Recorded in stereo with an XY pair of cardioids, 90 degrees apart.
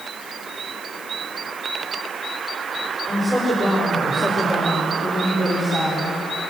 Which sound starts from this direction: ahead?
A woman speaking, at 3.1 s.